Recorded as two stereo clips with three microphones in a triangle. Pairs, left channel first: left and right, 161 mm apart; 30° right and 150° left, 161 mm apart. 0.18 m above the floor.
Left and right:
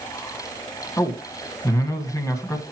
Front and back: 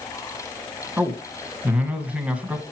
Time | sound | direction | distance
1.0 | a man speaking | 85° left | 1.6 m